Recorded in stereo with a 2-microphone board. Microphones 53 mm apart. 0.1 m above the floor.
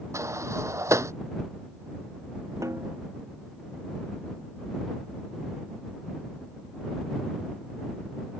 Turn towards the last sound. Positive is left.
turn(degrees=-75)  # may be behind; listen again after turning